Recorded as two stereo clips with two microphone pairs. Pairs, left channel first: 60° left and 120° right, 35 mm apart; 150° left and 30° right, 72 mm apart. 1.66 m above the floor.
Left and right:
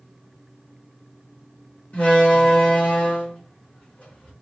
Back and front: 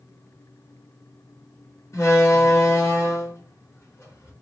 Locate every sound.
1.9 s a door slam: 105° left, 2 m